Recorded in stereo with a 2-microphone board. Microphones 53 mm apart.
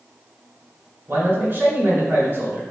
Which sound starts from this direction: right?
A man speaking, at 1.1 s.